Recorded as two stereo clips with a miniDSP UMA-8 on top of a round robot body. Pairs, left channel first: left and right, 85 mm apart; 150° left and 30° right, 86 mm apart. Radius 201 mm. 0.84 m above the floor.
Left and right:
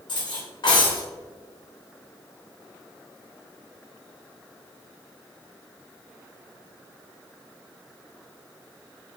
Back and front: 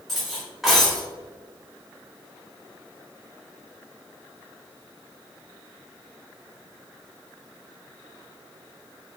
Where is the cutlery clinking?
60° left, 2.5 m.